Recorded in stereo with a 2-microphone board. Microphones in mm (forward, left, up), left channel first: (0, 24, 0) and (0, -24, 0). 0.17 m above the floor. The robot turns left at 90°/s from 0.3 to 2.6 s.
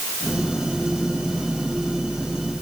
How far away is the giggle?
No giggle in this recording.